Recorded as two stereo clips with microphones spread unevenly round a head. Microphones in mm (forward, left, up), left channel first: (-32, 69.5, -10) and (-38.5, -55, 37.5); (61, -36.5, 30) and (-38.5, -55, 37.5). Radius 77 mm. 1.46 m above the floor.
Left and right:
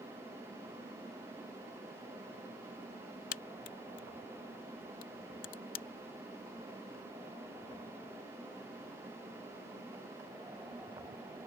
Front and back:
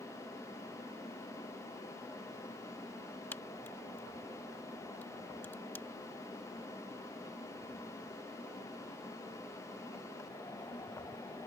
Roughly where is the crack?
Left.